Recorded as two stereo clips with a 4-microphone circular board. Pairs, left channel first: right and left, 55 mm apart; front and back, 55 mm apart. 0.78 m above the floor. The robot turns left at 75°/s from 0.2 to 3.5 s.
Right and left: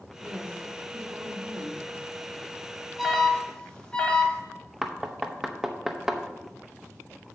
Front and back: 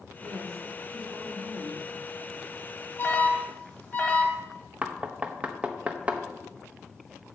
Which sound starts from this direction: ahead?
An alarm, at 3.0 s.